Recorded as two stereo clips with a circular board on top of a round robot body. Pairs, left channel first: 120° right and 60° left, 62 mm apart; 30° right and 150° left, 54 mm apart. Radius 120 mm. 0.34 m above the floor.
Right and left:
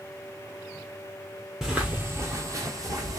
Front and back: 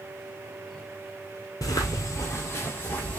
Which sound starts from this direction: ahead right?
Footsteps, at 1.6 s.